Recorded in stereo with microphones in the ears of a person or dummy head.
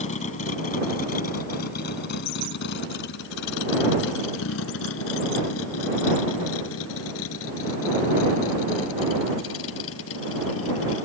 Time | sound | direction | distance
0.0 | a vehicle | 40° left (ahead or behind) | ?